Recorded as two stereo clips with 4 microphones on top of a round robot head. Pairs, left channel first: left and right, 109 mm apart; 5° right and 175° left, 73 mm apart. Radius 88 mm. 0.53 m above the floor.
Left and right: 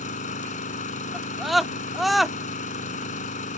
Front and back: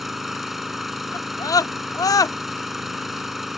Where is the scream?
Straight ahead.